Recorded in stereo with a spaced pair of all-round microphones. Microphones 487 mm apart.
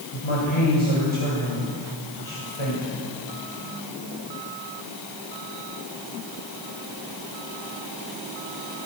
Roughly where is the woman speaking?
Left.